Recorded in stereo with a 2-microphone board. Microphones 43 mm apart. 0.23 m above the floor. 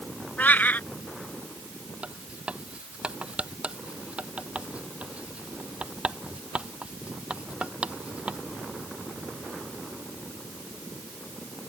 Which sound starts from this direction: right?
Writing, at 2.0 s.